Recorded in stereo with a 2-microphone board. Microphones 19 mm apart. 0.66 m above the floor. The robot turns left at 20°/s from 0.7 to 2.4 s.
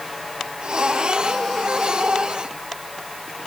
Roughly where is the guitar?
I don't hear a guitar.